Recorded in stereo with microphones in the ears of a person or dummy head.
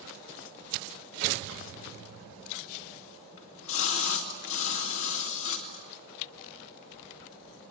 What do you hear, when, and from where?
3.4 s a splash: 70° left (ahead or behind), 2.5 m